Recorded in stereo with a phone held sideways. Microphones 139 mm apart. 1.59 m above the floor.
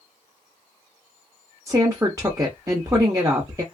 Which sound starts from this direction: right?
A woman speaking, at 1.7 s.